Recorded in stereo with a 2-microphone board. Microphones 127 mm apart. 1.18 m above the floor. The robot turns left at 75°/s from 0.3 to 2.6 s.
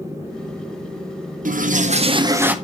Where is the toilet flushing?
90° right, 0.6 m; by 2.5 s 170° right, 0.6 m.